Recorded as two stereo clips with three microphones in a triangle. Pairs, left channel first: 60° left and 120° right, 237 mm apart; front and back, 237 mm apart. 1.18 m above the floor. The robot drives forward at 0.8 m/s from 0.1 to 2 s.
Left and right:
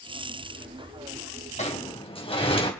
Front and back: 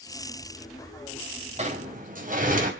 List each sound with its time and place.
1.6 s a sliding door: 120° left, 2.5 m; by 2.7 s 125° left, 2.5 m